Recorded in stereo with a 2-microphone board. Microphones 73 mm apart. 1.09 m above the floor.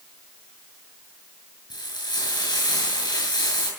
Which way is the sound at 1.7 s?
80° left.